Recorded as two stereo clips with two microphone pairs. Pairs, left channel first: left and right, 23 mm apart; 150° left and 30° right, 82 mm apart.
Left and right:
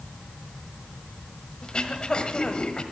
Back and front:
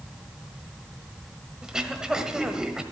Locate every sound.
1.6 s throat clearing: 50° left, 1.3 m